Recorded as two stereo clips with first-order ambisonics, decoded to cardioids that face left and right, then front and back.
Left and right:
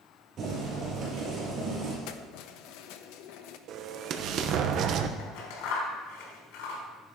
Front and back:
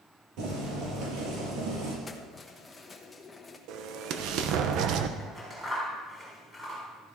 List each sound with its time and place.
0.4 s boiling: 150° right, 6 m
2.1 s keys jangling: 75° left, 1.0 m
3.7 s an explosion: 140° right, 0.9 m
5.2 s scissors: 100° left, 4 m